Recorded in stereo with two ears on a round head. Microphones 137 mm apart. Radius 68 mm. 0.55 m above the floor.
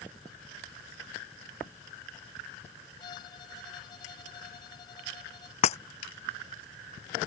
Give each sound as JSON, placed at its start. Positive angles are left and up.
{"t": 3.0, "sound": "a violin", "side_deg": 30}
{"t": 5.6, "sound": "breaking glass", "side_deg": 45}